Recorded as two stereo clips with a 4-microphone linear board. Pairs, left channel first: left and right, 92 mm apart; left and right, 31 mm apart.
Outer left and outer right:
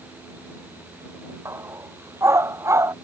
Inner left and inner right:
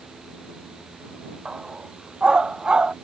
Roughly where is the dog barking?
Right.